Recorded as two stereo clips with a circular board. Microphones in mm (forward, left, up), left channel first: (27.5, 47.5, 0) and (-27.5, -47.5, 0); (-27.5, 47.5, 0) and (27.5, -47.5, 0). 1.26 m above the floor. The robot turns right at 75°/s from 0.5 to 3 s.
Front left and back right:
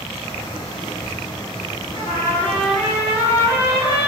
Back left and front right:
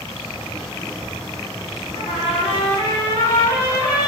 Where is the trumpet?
90° left, 1.6 m; by 4.1 s 170° left, 1.6 m.